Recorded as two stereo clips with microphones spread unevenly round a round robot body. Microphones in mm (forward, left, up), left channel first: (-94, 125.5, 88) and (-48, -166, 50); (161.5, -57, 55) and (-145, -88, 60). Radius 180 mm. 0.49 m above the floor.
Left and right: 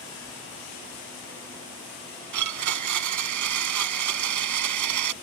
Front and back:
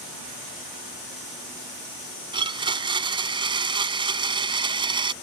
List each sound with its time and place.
2.3 s a blender: 100° right